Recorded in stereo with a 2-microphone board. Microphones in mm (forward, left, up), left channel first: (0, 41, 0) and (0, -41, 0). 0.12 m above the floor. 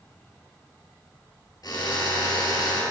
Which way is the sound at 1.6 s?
55° left (ahead or behind).